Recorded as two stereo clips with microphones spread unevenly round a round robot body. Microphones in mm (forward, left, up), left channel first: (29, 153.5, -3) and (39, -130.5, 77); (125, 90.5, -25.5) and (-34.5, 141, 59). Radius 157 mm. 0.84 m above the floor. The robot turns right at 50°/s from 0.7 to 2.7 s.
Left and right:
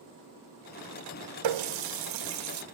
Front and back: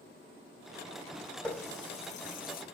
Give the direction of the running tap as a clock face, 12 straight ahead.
3 o'clock.